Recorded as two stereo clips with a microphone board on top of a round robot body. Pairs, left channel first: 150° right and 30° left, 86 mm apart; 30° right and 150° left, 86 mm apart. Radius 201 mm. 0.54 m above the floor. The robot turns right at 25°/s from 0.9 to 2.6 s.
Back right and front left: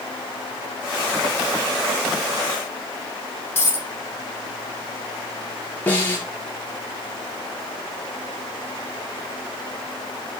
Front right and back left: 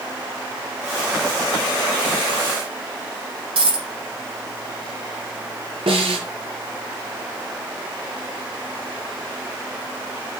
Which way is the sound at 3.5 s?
145° left.